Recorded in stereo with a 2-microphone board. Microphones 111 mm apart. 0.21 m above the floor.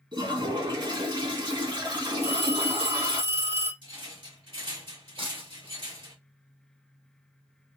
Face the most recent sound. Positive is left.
turn(degrees=-55)  # may be behind; listen again after turning